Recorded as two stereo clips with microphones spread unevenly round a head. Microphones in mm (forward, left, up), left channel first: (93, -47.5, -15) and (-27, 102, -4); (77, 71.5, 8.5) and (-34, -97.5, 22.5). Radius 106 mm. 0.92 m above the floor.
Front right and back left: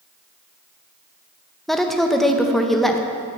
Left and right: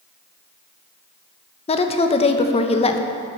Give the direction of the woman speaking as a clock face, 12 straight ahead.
11 o'clock.